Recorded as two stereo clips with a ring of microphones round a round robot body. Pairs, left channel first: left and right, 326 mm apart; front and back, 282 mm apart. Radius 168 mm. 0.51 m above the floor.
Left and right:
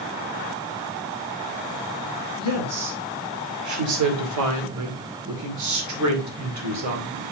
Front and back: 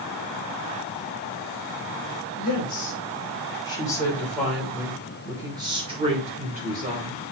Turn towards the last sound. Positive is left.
turn(degrees=-125)